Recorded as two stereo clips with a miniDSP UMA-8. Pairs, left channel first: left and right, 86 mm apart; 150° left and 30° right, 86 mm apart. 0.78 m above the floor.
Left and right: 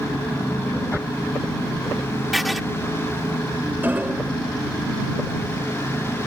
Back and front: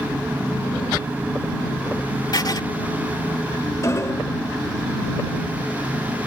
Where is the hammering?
160° right.